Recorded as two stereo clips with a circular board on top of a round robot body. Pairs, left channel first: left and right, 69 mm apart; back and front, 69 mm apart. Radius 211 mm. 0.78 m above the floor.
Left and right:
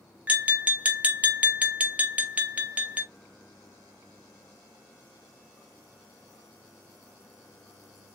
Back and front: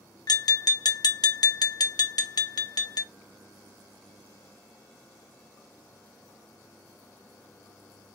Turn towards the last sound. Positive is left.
turn(degrees=-160)